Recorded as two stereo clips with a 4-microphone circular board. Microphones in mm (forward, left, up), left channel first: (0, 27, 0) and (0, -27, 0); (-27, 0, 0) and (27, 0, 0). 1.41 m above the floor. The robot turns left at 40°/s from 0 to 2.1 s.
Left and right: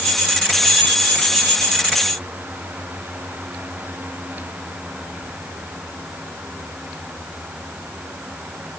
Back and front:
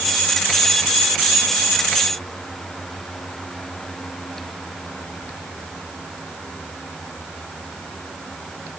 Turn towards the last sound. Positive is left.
No sound to turn to.